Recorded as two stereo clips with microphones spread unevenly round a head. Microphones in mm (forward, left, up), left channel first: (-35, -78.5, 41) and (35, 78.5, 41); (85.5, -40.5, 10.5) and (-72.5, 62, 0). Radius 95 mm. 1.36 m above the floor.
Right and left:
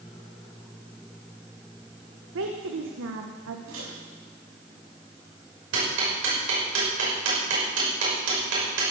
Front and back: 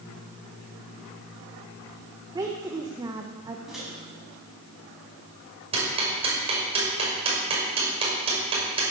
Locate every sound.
2.4 s a woman speaking: 75° left, 1.2 m
3.7 s a microwave: 60° left, 7 m
5.7 s ticking: 85° left, 6 m